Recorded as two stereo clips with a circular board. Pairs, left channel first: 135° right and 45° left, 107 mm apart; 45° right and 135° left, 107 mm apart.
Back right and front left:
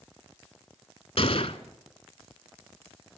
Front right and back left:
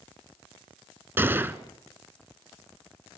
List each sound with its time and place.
1.2 s a gunshot: 155° right, 0.9 m